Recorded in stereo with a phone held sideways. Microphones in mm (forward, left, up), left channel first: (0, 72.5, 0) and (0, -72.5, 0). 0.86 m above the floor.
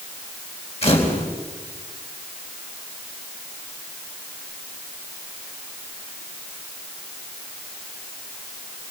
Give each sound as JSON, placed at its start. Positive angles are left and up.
{"t": 0.8, "sound": "a camera shutter", "side_deg": 45, "distance_m": 4.0}